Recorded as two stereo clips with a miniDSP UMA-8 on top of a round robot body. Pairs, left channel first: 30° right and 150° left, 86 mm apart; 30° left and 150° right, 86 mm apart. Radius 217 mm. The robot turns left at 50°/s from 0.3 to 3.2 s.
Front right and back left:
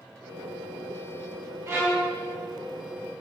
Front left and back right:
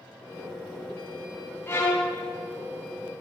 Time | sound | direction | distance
1.7 | a violin | 95° left | 4 m